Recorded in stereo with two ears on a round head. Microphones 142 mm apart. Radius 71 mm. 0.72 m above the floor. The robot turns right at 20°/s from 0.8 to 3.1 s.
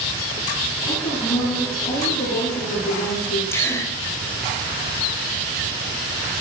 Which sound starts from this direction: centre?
A gasp, at 3.5 s.